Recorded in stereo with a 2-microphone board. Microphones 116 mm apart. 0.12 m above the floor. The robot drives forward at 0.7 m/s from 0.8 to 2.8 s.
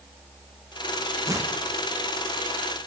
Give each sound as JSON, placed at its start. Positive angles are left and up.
{"t": 1.3, "sound": "tearing paper", "side_deg": -30, "distance_m": 3.5}